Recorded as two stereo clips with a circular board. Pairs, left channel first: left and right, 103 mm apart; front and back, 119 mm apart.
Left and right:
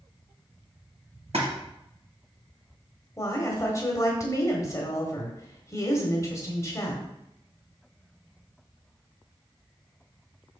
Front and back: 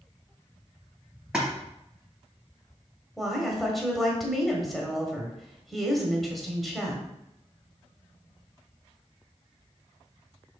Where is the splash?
95° right, 3 m.